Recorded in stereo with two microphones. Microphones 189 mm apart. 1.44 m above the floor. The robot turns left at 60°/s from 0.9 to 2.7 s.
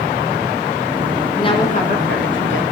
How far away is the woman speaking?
About 1.8 m.